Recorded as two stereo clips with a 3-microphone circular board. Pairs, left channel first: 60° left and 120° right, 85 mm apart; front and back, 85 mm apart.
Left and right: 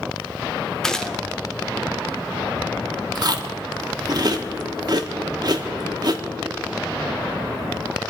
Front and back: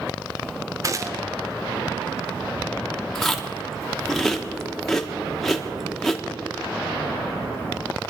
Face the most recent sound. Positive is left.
turn(degrees=-90)